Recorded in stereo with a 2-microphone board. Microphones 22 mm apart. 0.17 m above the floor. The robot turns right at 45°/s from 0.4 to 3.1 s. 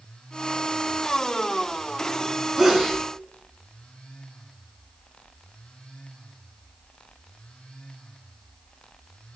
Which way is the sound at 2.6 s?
5° right (ahead or behind).